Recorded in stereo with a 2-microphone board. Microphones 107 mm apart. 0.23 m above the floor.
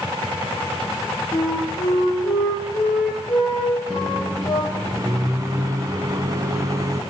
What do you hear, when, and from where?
1.3 s a flute: 40° left (ahead or behind), 7.5 m
3.9 s a microwave: 35° right (ahead or behind), 1.5 m